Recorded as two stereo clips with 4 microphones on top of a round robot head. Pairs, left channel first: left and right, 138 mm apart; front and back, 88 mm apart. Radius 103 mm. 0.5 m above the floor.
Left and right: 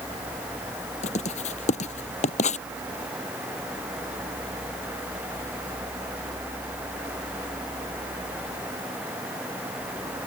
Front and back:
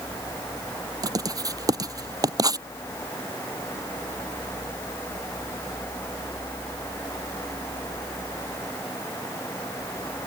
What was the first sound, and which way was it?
Writing, 135° left.